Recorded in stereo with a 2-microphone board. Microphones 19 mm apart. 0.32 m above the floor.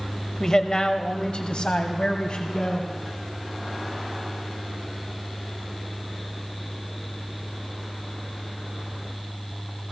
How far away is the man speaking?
About 1.3 m.